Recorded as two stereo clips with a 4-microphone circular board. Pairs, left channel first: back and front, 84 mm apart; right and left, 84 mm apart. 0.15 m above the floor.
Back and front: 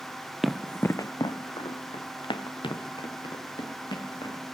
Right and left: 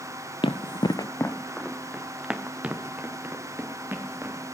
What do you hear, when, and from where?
0.4 s running footsteps: 90° right, 0.7 m; by 4.4 s 155° left, 3 m